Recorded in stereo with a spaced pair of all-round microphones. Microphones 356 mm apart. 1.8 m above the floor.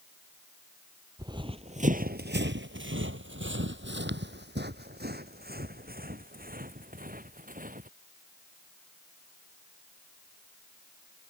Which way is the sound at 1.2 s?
10° right (ahead or behind).